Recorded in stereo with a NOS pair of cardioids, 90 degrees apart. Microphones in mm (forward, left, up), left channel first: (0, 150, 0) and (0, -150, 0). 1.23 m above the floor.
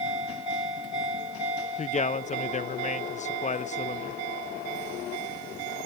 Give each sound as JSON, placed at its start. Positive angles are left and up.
{"t": 1.8, "sound": "a man speaking", "azimuth_deg": 25, "distance_m": 0.8}